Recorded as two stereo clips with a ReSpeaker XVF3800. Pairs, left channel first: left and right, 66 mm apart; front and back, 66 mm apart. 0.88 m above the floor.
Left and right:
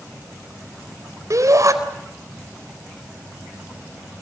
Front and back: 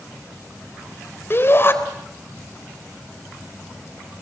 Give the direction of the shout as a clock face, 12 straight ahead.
2 o'clock.